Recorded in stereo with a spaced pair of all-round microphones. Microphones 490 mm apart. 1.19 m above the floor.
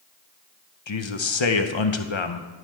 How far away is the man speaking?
About 0.7 m.